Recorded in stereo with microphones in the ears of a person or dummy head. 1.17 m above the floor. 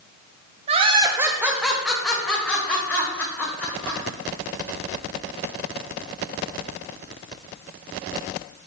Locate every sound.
0.7 s laughter: 35° right (ahead or behind), 0.7 m; by 4.0 s 5° left (ahead or behind), 4 m